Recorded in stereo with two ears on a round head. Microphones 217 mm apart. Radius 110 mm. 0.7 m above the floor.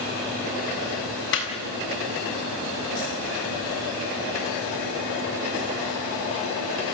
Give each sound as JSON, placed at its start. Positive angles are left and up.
{"t": 1.3, "sound": "laughter", "side_deg": 50, "distance_m": 7.0}